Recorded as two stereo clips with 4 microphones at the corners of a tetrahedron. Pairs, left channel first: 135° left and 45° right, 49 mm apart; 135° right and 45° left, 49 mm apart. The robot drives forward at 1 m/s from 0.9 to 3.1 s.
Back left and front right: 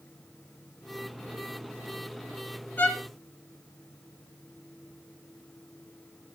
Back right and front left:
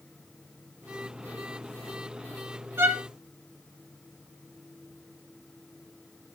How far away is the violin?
About 3 m.